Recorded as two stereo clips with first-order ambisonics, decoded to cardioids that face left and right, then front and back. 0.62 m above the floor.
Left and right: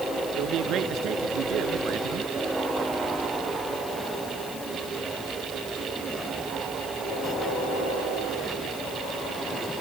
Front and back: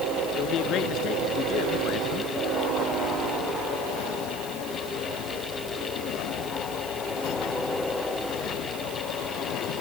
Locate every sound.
0.3 s a man speaking: 50° right